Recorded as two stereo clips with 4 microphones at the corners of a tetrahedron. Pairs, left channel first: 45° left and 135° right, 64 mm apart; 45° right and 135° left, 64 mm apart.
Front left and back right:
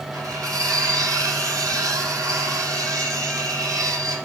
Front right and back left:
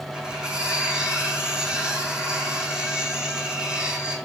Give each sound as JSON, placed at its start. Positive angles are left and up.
{"t": 0.1, "sound": "cutlery clinking", "azimuth_deg": -150, "distance_m": 3.0}